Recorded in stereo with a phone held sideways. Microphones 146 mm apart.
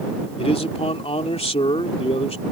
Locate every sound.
0.4 s a man speaking: 45° left (ahead or behind)